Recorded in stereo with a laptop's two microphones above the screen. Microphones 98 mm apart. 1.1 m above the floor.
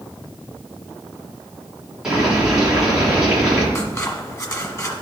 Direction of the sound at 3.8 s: 30° left (ahead or behind).